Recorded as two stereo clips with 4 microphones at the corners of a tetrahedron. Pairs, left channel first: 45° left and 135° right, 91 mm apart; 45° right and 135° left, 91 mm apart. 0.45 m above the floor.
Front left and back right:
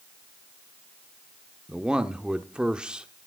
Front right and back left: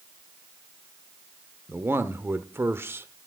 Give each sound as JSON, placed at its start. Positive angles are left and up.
{"t": 1.7, "sound": "a man speaking", "azimuth_deg": 155, "distance_m": 0.9}